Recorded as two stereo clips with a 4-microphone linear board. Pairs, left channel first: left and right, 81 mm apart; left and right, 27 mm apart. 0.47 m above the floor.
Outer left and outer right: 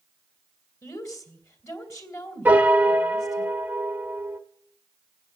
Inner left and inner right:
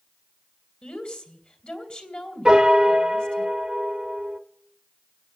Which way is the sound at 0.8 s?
40° left (ahead or behind).